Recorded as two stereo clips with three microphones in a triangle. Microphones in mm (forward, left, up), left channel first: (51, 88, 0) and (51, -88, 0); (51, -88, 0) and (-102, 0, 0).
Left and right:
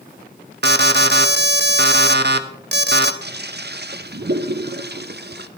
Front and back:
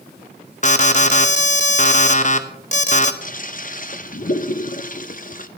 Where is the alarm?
75° right, 0.9 m.